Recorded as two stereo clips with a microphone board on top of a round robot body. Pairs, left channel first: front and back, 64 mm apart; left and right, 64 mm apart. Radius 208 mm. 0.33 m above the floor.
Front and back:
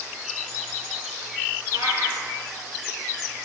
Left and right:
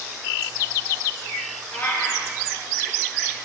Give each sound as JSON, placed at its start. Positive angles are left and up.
{"t": 1.7, "sound": "a cat meowing", "azimuth_deg": 150, "distance_m": 5.0}